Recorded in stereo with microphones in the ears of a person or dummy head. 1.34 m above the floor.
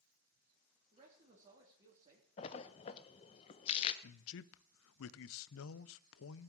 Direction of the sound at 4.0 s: 65° left (ahead or behind).